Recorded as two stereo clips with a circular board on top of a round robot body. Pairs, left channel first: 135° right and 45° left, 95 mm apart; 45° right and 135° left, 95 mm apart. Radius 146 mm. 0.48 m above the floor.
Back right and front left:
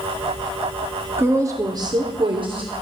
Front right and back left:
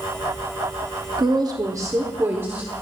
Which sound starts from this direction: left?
A woman speaking, at 1.2 s.